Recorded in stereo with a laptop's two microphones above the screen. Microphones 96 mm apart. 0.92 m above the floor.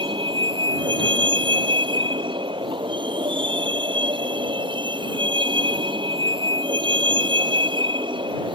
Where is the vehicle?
60° right (ahead or behind).